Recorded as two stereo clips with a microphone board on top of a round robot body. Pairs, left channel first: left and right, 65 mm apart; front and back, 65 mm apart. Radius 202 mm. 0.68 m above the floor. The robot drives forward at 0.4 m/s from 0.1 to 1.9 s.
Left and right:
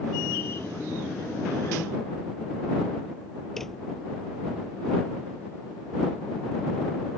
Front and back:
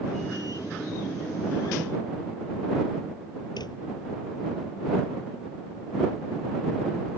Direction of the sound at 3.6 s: 5° left.